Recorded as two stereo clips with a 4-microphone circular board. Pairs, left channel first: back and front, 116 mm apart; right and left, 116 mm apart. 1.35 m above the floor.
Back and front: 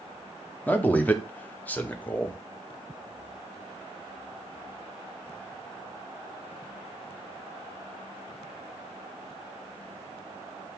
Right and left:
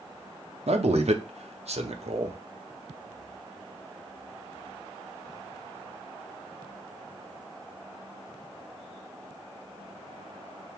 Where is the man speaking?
105° left, 0.7 m.